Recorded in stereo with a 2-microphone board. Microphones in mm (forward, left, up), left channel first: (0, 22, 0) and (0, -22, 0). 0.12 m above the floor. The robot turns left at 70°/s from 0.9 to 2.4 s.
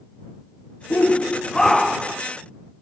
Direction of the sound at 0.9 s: 60° left.